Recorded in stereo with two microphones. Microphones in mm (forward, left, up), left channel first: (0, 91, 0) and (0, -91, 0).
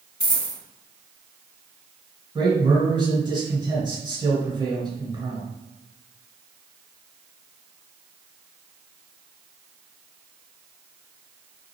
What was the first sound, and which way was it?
A dropped coin, 75° left (ahead or behind).